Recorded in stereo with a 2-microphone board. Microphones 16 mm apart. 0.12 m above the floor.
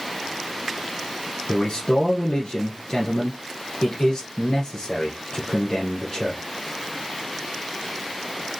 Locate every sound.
1.5 s a man speaking: 45° left (ahead or behind), 1.9 m